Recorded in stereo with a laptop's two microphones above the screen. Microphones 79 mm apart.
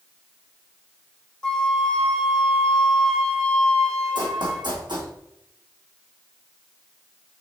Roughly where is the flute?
Centre.